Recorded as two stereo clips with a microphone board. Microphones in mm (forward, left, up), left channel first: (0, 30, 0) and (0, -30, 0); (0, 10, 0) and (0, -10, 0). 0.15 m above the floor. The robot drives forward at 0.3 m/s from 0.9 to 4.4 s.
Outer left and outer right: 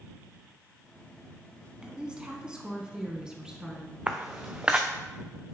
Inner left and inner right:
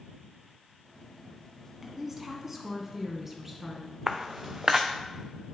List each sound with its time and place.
1.8 s a woman speaking: 15° right (ahead or behind), 1.1 m
4.1 s footsteps: 20° right (ahead or behind), 0.9 m